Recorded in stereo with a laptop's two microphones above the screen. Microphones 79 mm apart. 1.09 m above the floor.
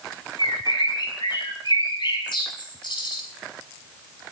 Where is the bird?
70° left (ahead or behind), 5.5 m.